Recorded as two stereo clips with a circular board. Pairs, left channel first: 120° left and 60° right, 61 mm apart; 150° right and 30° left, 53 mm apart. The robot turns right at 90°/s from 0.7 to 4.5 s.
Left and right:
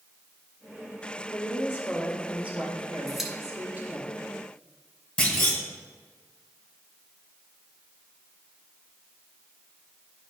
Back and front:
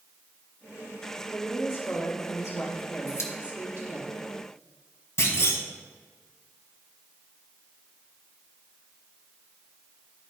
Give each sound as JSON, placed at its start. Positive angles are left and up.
{"t": 1.3, "sound": "a woman speaking", "azimuth_deg": 130, "distance_m": 2.0}
{"t": 3.1, "sound": "a pop", "azimuth_deg": -160, "distance_m": 1.4}
{"t": 5.2, "sound": "a clunk", "azimuth_deg": -175, "distance_m": 1.7}